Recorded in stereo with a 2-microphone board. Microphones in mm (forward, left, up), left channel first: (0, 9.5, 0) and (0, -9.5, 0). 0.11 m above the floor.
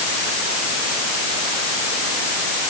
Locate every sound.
Only background noise.